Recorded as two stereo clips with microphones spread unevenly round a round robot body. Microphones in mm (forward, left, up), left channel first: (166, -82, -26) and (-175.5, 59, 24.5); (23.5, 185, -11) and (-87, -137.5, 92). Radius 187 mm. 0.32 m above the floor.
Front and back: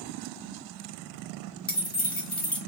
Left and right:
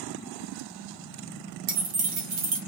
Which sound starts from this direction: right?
Keys jangling, at 1.7 s.